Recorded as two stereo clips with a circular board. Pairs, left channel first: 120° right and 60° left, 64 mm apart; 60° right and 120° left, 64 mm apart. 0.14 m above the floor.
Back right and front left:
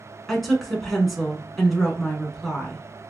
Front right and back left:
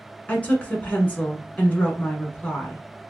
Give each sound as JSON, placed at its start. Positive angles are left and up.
{"t": 0.3, "sound": "a woman speaking", "azimuth_deg": -35, "distance_m": 1.2}